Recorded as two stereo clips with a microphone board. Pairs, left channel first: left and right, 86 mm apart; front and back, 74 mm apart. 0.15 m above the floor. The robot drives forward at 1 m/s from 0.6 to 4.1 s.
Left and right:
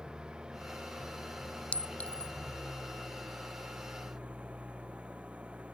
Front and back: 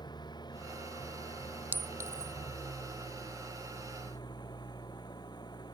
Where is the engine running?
10° right; by 5.7 s 15° right.